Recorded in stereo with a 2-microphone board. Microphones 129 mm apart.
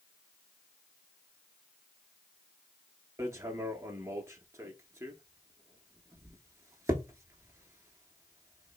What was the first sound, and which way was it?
Hammering, 20° right (ahead or behind).